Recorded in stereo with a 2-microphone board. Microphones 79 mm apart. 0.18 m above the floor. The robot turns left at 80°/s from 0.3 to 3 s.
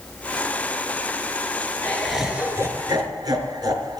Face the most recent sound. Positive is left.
turn(degrees=-70)